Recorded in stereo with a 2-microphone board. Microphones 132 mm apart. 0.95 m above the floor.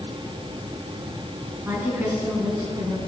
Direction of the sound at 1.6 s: 15° right (ahead or behind).